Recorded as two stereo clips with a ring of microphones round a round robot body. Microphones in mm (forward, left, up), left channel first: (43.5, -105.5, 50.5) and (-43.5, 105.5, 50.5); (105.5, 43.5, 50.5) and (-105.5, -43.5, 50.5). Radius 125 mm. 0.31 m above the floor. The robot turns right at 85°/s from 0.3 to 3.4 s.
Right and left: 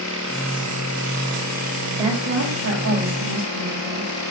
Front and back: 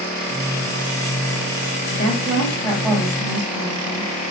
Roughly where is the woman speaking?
Ahead left.